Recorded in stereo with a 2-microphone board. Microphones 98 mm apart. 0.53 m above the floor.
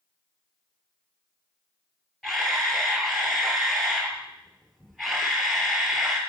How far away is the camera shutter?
About 3 m.